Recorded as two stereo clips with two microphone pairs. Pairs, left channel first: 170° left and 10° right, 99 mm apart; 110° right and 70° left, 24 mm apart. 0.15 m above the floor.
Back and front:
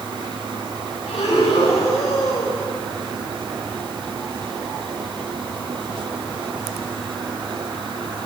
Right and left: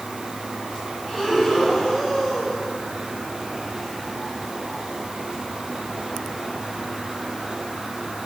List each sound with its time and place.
1.1 s breathing: 175° left, 8 m